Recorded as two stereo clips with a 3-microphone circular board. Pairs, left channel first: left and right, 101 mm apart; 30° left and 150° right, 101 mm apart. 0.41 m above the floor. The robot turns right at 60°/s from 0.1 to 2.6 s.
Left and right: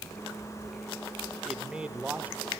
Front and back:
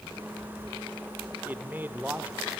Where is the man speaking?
165° right, 1.0 m; by 2.5 s 105° right, 1.0 m.